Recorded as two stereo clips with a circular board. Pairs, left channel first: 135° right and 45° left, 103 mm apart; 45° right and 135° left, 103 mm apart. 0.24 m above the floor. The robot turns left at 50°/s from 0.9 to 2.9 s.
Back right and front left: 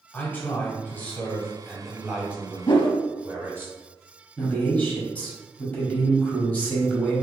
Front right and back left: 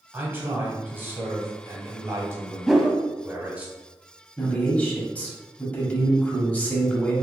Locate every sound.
0.1 s a man speaking: straight behind, 1.0 m; by 3.7 s 80° left, 1.0 m
2.7 s a whoosh: 135° right, 0.5 m; by 3.0 s 150° right, 0.5 m
4.4 s a man speaking: 90° right, 1.2 m